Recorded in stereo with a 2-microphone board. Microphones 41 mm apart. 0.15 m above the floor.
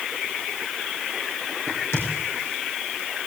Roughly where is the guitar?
No guitar in this recording.